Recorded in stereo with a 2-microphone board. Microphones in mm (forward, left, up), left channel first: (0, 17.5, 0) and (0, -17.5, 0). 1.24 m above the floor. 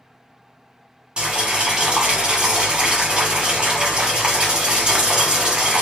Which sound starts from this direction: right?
Boiling, at 1.2 s.